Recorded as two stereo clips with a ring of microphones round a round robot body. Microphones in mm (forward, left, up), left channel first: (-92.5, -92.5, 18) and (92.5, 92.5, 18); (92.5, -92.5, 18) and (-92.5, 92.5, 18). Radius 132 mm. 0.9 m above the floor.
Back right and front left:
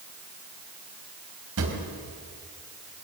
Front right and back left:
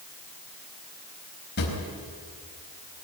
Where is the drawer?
5° left, 4 m.